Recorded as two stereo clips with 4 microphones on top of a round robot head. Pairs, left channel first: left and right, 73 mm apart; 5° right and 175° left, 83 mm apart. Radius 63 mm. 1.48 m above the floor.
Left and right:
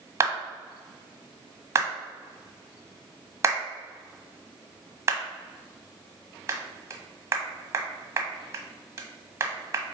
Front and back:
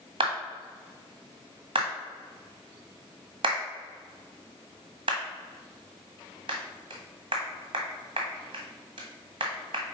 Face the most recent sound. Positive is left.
turn(degrees=-145)